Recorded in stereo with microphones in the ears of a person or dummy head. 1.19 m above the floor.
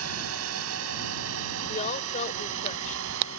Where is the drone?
75° right (ahead or behind); by 3.4 s 65° right (ahead or behind).